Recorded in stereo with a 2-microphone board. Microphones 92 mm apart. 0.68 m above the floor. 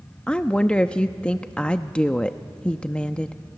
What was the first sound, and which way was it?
A woman speaking, 10° left (ahead or behind).